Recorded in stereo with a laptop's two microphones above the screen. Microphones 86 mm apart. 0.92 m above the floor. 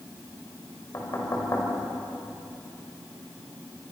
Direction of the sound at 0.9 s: 40° left (ahead or behind).